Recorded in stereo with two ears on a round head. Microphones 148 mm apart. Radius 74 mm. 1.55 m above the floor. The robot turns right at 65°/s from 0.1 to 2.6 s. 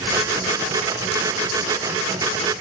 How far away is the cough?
No cough in this recording.